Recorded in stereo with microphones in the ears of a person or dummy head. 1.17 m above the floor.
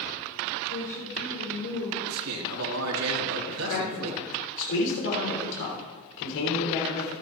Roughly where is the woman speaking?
Left.